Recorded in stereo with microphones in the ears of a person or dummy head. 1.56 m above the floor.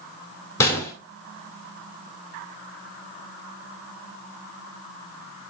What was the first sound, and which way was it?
A gunshot, 20° left (ahead or behind).